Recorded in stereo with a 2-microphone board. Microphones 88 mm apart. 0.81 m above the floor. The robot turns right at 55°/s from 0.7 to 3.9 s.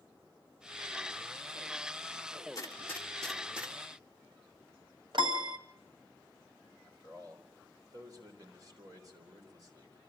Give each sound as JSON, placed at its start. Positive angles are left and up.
{"t": 2.5, "sound": "a gunshot", "side_deg": 40, "distance_m": 2.0}
{"t": 5.1, "sound": "a piano", "side_deg": -65, "distance_m": 1.3}
{"t": 6.8, "sound": "a man speaking", "side_deg": -45, "distance_m": 4.0}